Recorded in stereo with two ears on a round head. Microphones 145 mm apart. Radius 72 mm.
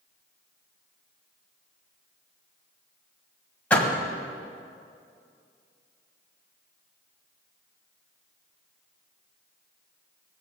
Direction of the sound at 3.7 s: 10° left (ahead or behind).